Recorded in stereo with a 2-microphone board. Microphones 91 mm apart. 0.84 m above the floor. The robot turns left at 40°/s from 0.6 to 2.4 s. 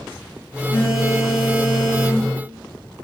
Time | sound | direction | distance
0.7 | a phone buzzing | 100° left | 1.4 m